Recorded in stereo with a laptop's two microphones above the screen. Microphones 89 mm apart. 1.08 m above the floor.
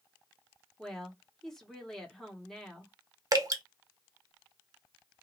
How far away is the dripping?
About 0.6 m.